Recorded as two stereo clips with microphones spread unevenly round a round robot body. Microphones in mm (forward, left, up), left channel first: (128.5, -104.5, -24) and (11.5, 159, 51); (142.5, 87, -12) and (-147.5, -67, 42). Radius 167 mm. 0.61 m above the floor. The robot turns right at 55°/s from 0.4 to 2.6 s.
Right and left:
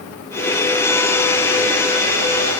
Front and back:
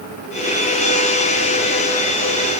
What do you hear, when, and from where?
Only background noise.